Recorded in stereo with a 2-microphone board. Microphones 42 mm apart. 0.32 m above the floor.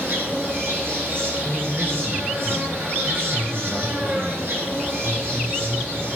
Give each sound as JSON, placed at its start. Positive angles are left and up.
{"t": 0.0, "sound": "an insect", "side_deg": -55, "distance_m": 3.5}
{"t": 1.4, "sound": "a man speaking", "side_deg": -5, "distance_m": 2.0}